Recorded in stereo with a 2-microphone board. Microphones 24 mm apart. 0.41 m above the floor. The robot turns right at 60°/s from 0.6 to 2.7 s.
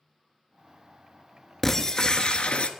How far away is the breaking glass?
About 0.6 m.